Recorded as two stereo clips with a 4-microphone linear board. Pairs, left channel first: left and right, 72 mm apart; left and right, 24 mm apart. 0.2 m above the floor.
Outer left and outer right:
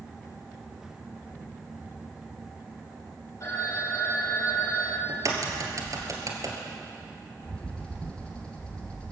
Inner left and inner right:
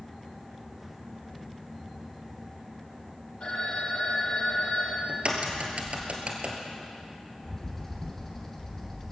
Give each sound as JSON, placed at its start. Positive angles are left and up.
{"t": 3.4, "sound": "a phone ringing", "side_deg": 45, "distance_m": 4.5}
{"t": 5.1, "sound": "a crack", "side_deg": -55, "distance_m": 2.5}
{"t": 7.4, "sound": "a bird", "side_deg": 15, "distance_m": 2.5}